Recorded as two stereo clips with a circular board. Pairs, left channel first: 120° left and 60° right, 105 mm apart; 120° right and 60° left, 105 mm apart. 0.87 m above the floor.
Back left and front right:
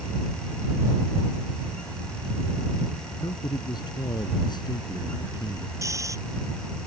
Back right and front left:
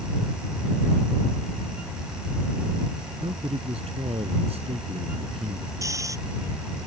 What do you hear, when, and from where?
3.2 s a man speaking: 75° left
5.8 s snoring: straight ahead